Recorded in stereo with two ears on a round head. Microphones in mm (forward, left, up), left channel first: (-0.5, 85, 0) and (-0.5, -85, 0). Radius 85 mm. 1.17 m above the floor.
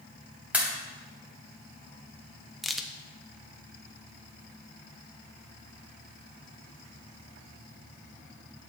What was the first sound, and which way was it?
A pop, 5° right (ahead or behind).